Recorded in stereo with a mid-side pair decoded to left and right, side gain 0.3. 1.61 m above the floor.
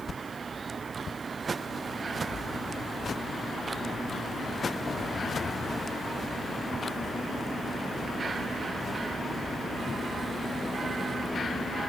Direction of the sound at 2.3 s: 60° left.